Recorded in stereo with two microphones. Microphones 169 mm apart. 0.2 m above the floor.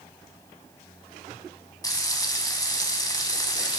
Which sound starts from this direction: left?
Frying, at 1.8 s.